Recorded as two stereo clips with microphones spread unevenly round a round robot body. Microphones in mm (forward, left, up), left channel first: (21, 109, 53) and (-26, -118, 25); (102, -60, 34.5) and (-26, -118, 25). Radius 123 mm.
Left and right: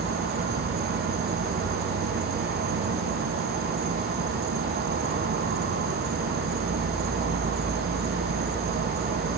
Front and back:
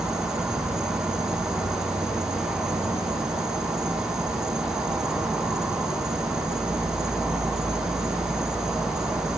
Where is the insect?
75° right, 1.4 m.